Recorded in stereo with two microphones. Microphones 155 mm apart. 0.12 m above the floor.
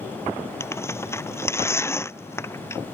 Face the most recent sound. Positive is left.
turn(degrees=15)  # may be behind; listen again after turning